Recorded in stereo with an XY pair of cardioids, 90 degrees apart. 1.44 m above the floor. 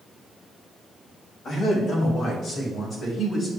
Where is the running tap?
No running tap in this recording.